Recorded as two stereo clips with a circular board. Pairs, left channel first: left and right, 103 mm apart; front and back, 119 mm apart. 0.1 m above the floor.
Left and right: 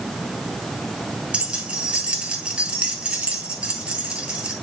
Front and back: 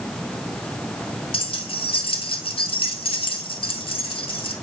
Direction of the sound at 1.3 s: 15° right.